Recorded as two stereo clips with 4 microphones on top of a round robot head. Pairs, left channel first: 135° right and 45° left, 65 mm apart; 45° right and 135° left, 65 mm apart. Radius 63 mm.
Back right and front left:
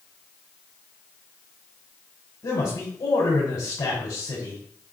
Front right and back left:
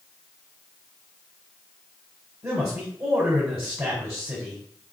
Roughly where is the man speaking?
Behind.